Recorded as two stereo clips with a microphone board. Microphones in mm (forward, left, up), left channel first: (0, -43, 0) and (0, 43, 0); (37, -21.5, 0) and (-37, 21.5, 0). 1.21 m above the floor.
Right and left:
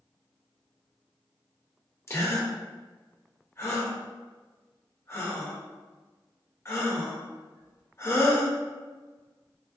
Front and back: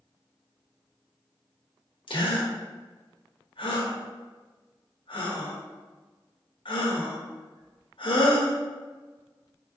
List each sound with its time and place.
2.1 s a gasp: 30° right, 0.8 m